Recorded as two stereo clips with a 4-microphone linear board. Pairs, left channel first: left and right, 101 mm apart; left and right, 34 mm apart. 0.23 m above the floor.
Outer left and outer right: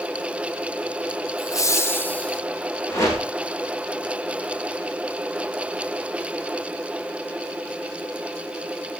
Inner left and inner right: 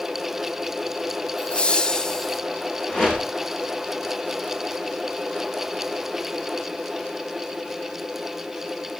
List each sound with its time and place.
1.4 s laughter: 35° left (ahead or behind), 1.4 m; by 2.4 s 10° left (ahead or behind), 1.6 m
2.9 s a whoosh: 30° left (ahead or behind), 6 m